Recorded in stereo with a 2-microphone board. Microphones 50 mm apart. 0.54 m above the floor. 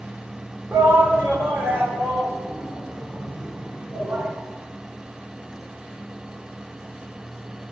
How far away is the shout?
About 1.6 m.